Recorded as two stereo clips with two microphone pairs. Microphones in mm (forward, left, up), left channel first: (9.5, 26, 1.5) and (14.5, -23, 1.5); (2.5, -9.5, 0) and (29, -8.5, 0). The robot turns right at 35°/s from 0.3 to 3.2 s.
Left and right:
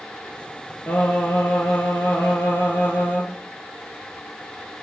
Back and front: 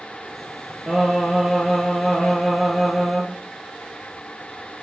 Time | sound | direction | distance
0.9 | singing | 65° left | 1.4 m